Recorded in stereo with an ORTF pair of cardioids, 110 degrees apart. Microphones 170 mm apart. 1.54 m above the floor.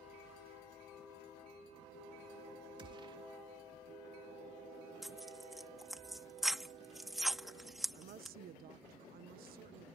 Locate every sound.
2.8 s a gunshot: 30° right
5.0 s tearing paper: straight ahead
7.9 s a woman speaking: 60° right